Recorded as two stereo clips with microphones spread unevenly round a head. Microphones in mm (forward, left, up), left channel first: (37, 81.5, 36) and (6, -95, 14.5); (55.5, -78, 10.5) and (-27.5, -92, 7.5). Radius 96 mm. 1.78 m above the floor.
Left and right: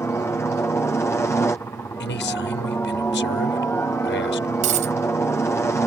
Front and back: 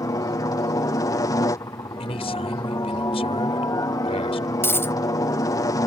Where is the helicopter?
5° left.